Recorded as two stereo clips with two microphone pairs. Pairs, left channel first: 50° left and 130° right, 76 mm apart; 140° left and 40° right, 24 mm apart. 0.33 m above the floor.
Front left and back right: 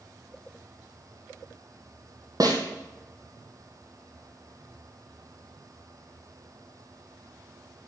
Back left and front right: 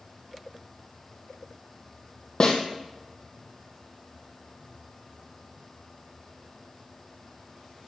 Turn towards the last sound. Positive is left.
turn(degrees=-165)